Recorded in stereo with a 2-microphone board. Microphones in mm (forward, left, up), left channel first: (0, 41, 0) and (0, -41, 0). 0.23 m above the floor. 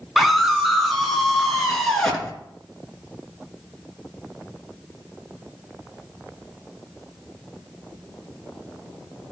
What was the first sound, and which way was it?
A scream, 5° right (ahead or behind).